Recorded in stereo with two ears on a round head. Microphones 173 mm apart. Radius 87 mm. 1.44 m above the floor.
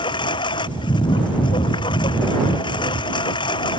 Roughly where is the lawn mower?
Left.